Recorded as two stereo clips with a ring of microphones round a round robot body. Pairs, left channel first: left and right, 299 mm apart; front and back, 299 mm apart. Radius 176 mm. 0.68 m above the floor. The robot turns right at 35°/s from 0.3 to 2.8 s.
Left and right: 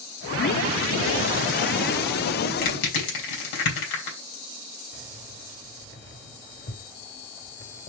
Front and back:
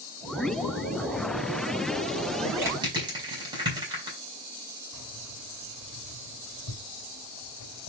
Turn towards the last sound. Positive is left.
turn(degrees=35)